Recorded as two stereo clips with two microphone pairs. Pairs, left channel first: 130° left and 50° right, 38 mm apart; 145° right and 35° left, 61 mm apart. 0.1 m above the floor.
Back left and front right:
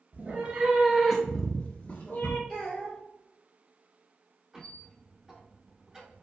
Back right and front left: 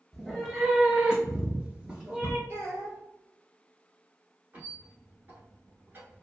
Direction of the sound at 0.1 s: 60° right.